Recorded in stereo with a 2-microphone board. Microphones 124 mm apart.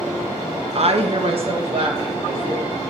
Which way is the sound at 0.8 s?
55° right (ahead or behind).